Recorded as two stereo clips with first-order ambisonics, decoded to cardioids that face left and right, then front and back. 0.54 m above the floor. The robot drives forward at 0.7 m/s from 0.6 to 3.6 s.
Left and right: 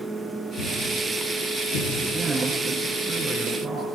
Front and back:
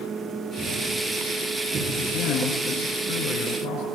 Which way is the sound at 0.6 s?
110° left.